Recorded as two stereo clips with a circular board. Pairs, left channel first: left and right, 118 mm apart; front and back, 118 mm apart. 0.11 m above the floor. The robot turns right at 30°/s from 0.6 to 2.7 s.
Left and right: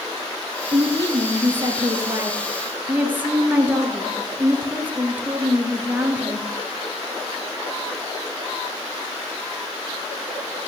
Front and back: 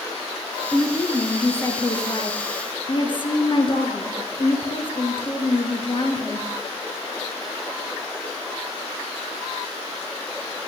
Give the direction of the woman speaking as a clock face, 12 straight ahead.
3 o'clock.